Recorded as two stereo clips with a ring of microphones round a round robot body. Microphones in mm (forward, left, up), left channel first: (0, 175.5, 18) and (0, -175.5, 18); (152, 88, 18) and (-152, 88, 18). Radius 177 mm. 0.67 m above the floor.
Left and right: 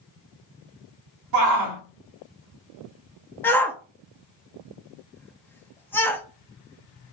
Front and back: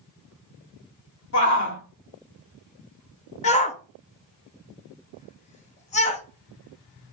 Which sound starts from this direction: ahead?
A shout, at 3.4 s.